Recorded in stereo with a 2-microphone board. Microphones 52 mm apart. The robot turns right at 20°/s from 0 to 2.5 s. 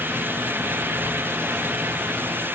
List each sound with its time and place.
Only background noise.